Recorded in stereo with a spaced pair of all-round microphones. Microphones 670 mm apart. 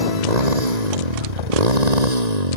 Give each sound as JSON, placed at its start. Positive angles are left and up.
{"t": 0.0, "sound": "a motorcycle", "side_deg": -65}